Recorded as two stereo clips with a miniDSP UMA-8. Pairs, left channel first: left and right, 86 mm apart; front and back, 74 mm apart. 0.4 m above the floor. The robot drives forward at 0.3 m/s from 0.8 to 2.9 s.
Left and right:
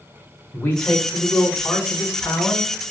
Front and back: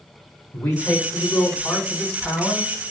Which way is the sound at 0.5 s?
35° left.